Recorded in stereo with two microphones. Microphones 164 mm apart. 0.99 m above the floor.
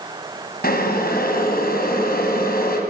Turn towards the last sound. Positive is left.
turn(degrees=65)  # may be behind; listen again after turning